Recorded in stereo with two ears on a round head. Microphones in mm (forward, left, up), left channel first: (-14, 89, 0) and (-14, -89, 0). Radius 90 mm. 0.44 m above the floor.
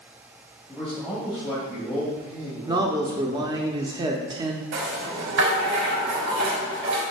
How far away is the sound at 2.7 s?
About 0.7 m.